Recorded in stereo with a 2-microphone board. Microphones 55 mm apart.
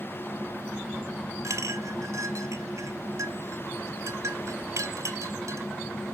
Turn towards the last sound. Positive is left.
turn(degrees=-65)  # may be behind; listen again after turning